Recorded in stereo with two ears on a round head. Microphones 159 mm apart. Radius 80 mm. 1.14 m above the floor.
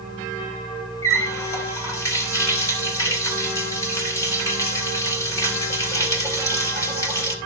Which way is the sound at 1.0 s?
20° left (ahead or behind).